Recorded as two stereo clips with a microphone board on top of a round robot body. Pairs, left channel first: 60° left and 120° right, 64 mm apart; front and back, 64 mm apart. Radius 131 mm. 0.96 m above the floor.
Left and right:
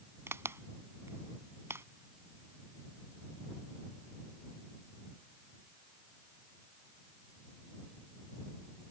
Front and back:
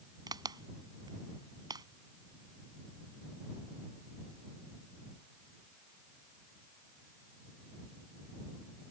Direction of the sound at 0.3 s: 175° right.